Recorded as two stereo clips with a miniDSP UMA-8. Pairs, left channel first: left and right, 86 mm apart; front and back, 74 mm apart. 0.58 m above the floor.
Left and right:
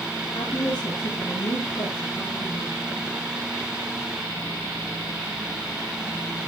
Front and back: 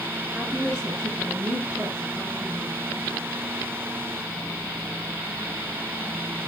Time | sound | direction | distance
0.3 | a woman speaking | 105° left | 10 m